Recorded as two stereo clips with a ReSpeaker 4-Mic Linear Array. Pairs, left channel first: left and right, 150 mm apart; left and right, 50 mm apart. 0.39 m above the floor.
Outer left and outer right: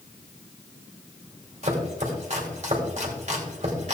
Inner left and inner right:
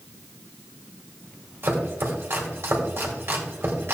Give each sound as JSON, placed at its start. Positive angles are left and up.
{"t": 1.6, "sound": "chopping", "side_deg": -50, "distance_m": 2.0}